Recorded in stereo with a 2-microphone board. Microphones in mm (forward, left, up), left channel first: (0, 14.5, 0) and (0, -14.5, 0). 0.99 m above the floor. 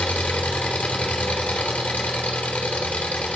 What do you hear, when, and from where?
0.0 s an engine running: 55° left (ahead or behind), 2.5 m